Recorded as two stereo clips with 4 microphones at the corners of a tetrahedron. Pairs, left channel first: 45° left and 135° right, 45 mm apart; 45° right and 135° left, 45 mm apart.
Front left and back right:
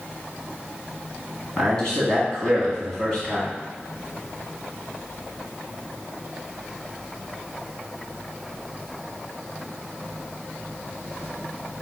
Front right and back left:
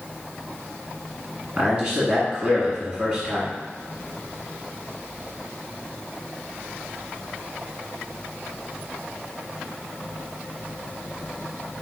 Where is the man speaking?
110° left, 1.5 m.